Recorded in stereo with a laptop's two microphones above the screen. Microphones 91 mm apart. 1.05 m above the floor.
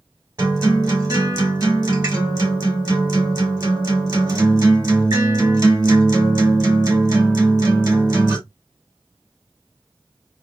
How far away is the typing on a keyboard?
I don't hear typing on a keyboard.